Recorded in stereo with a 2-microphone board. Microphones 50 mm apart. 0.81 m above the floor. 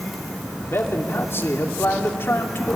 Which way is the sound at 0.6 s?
50° left (ahead or behind).